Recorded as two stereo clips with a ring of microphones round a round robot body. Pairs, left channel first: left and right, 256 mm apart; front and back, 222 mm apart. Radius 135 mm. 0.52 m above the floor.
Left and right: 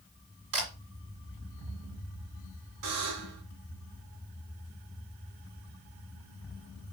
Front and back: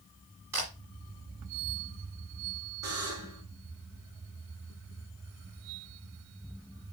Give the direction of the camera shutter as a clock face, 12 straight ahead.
3 o'clock.